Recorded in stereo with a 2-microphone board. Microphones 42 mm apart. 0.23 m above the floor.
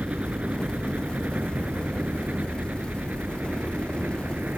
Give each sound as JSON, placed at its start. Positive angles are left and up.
{"t": 0.0, "sound": "a helicopter", "side_deg": -35}